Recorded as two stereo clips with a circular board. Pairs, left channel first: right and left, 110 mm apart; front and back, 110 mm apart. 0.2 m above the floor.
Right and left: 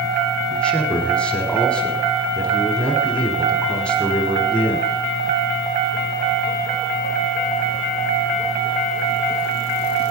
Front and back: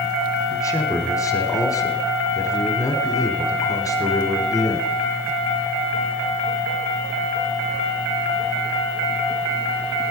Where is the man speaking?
20° right, 1.3 m.